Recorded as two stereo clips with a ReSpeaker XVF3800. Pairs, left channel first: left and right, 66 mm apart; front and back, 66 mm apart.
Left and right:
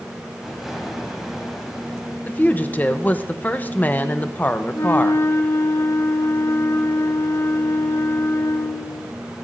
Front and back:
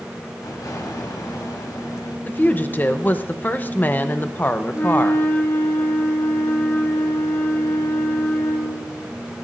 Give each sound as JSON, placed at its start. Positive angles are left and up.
{"t": 0.4, "sound": "an explosion", "azimuth_deg": -5, "distance_m": 3.0}
{"t": 2.2, "sound": "a woman speaking", "azimuth_deg": 45, "distance_m": 0.8}
{"t": 4.7, "sound": "a flute", "azimuth_deg": 50, "distance_m": 2.0}